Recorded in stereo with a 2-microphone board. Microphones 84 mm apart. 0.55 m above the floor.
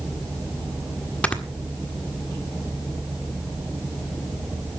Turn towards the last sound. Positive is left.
turn(degrees=15)  # may be behind; listen again after turning